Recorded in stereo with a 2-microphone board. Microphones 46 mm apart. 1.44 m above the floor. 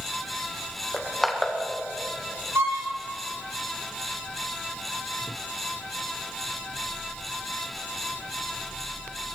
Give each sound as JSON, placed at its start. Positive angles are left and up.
{"t": 0.9, "sound": "crushing", "side_deg": 0, "distance_m": 1.8}
{"t": 2.5, "sound": "a violin", "side_deg": -65, "distance_m": 3.0}